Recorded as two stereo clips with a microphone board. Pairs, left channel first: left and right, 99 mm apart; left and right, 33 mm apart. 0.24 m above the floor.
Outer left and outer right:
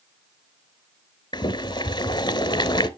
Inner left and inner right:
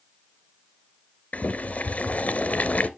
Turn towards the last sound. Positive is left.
turn(degrees=50)  # may be behind; listen again after turning